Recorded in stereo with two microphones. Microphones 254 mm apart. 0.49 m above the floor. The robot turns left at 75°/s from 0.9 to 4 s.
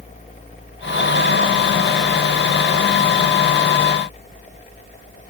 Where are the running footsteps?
No running footsteps in this recording.